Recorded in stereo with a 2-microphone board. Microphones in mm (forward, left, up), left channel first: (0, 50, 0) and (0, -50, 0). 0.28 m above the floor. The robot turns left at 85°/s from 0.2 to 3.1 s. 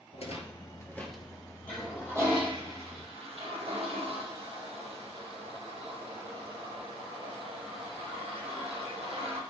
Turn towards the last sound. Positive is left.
turn(degrees=-75)  # may be behind; listen again after turning